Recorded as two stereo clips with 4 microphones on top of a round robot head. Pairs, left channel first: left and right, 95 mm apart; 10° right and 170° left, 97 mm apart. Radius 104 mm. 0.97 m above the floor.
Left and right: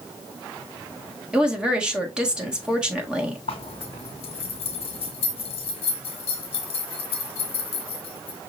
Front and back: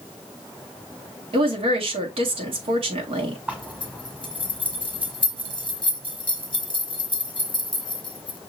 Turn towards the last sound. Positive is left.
turn(degrees=95)